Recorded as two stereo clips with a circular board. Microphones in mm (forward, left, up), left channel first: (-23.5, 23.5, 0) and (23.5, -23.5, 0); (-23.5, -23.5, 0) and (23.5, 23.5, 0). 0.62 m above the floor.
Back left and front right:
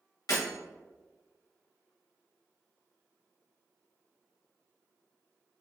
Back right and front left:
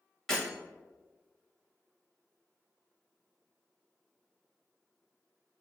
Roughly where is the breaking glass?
Behind left.